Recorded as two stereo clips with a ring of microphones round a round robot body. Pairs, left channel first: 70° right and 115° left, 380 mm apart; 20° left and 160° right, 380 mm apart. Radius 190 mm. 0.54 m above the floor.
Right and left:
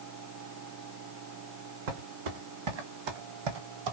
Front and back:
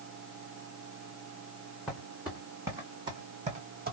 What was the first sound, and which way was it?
Footsteps, 115° left.